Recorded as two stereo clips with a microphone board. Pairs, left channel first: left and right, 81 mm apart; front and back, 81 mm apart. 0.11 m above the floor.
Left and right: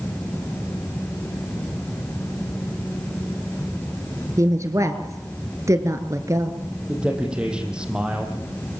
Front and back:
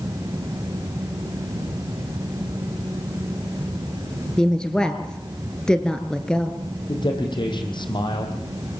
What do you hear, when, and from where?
4.4 s a woman speaking: 75° right, 1.8 m
6.9 s a man speaking: 10° right, 4.5 m